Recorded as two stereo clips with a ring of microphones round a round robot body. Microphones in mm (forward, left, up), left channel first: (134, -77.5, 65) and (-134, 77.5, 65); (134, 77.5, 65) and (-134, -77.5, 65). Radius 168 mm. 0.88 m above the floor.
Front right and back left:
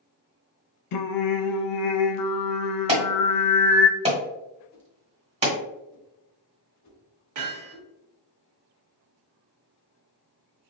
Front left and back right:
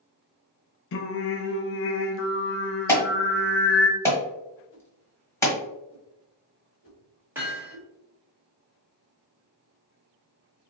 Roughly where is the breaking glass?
I don't hear breaking glass.